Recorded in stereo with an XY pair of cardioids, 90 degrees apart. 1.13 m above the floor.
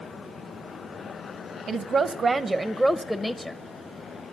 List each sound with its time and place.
1.7 s a woman speaking: 65° right, 0.7 m; by 3.6 s 25° left, 0.8 m